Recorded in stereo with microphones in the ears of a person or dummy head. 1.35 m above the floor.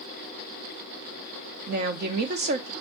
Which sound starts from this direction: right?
A woman speaking, at 1.7 s.